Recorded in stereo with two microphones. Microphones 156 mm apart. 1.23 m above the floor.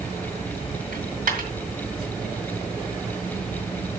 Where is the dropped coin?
70° right (ahead or behind), 2.5 m.